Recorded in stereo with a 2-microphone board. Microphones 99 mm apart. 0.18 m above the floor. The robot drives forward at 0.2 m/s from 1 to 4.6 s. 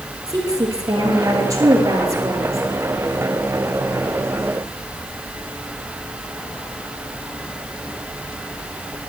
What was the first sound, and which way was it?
A woman speaking, 35° right (ahead or behind).